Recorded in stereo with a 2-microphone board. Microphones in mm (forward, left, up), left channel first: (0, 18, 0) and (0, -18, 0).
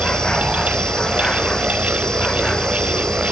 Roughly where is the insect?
Centre.